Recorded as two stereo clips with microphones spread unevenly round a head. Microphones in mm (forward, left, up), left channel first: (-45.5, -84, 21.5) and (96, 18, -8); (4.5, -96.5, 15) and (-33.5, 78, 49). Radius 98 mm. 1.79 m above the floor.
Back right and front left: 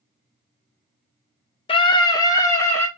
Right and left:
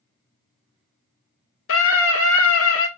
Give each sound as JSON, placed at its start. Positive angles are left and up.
{"t": 1.7, "sound": "a scream", "azimuth_deg": -90, "distance_m": 1.6}